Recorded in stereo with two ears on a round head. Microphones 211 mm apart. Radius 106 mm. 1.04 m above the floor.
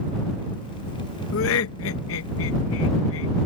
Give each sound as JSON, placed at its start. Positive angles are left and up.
{"t": 1.3, "sound": "laughter", "side_deg": 60}